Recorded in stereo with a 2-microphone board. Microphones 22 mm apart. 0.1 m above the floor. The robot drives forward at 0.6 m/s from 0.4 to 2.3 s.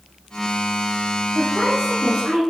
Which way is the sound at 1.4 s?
30° right (ahead or behind).